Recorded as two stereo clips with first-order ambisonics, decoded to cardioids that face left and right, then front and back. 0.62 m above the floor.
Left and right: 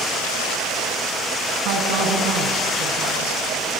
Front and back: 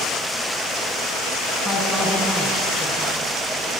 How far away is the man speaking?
About 4 m.